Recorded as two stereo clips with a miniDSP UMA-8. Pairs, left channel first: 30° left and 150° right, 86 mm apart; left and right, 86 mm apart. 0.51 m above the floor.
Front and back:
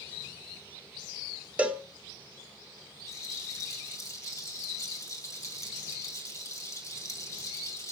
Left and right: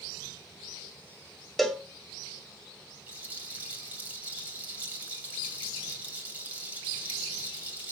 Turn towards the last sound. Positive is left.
turn(degrees=-20)